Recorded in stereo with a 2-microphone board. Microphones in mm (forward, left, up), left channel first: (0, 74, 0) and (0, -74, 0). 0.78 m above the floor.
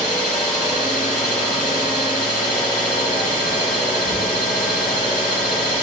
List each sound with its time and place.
0.0 s an engine running: 75° left (ahead or behind), 2.5 m